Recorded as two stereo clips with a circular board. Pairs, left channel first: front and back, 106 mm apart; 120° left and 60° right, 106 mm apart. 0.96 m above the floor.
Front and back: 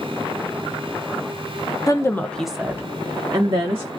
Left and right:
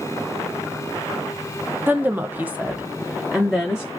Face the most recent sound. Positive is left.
turn(degrees=-150)